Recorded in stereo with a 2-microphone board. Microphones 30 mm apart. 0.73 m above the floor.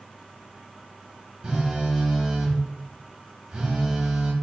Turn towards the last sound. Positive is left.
turn(degrees=-30)  # may be behind; listen again after turning